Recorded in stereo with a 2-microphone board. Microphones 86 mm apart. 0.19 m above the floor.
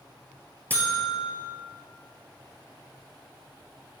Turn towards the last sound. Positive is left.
turn(degrees=20)  # may be behind; listen again after turning